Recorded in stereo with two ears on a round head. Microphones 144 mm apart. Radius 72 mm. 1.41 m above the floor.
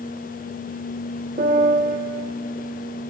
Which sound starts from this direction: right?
A piano, at 1.4 s.